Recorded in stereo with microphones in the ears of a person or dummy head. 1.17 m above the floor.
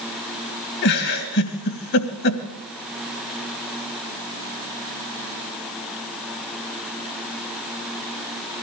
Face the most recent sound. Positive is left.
turn(degrees=55)  # may be behind; listen again after turning